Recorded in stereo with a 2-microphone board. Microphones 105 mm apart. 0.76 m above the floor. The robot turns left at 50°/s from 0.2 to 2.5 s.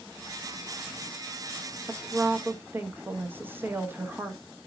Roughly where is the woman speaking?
Right.